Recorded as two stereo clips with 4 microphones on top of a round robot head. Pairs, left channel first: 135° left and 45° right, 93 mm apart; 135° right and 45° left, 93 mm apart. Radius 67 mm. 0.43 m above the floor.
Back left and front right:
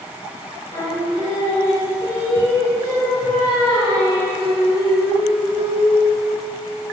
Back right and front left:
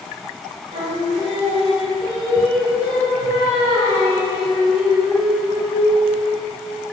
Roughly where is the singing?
Left.